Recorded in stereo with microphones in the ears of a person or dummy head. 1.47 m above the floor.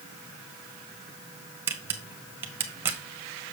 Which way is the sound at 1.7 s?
10° right (ahead or behind).